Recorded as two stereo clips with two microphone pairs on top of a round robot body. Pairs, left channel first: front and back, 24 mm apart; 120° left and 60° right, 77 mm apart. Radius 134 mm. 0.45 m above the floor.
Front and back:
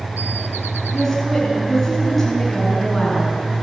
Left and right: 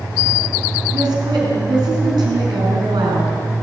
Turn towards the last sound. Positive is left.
turn(degrees=-85)